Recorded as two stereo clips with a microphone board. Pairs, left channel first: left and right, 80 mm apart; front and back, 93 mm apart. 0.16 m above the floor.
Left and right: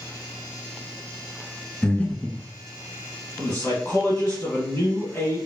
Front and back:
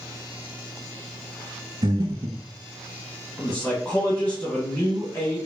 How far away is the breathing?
About 0.5 m.